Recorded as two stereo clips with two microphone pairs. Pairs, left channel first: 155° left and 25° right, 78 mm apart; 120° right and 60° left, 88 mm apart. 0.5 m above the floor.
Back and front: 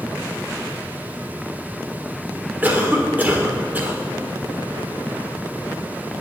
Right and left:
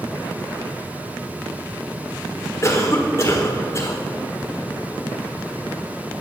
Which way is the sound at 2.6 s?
80° right.